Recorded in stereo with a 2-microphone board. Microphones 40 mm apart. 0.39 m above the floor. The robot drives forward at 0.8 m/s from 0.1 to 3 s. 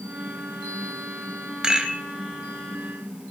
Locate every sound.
1.6 s a rattle: 20° right (ahead or behind), 1.5 m; by 2.0 s 15° right (ahead or behind), 1.7 m